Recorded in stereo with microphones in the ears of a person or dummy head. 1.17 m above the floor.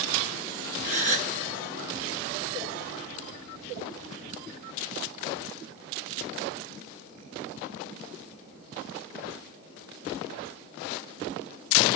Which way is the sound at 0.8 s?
40° right (ahead or behind).